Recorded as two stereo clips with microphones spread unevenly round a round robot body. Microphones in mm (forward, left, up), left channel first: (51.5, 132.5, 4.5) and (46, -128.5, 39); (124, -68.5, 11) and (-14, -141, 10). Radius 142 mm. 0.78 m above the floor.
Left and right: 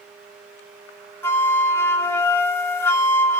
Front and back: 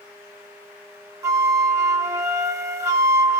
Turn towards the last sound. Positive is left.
turn(degrees=150)